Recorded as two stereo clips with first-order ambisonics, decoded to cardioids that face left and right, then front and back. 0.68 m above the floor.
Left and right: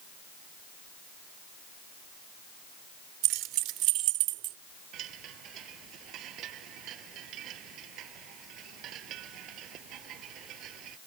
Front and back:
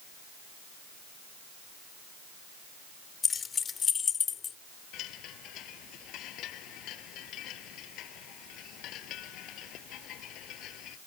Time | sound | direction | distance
3.2 | keys jangling | 65° right | ?
4.9 | a chime | 45° right | ?